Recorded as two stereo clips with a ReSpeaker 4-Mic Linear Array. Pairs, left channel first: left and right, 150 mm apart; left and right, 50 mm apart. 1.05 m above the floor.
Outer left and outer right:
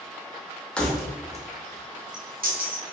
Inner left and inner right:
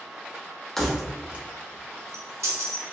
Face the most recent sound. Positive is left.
turn(degrees=-80)